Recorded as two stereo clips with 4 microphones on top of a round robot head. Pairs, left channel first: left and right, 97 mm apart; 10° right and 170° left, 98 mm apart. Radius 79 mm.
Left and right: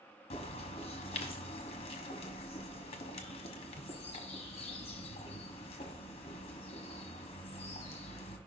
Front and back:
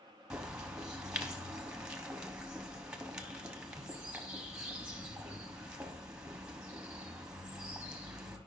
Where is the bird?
90° left, 1.0 m.